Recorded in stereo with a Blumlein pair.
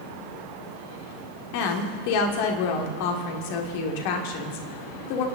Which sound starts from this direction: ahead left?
A woman speaking, at 1.5 s.